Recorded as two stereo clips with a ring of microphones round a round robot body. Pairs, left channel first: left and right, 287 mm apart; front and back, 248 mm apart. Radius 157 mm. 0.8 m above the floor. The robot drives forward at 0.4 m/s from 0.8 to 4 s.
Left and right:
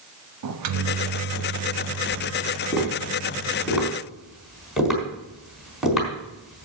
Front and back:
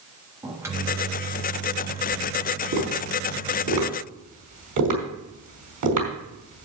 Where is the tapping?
Straight behind, 4 m.